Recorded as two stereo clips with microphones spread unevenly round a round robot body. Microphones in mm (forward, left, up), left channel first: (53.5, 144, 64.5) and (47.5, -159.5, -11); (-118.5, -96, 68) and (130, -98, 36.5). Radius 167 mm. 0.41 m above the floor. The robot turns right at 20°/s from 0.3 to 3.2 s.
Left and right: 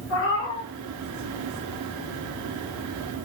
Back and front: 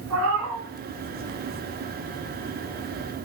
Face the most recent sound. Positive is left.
turn(degrees=95)